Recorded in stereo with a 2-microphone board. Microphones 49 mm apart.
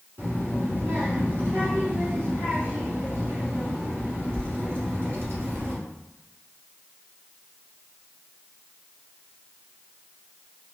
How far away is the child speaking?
About 1.4 m.